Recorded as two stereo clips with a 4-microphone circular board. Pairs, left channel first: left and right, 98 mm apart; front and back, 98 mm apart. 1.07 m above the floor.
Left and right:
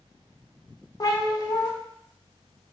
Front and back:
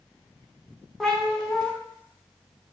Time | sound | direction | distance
1.0 | a cat meowing | 85° left | 0.6 m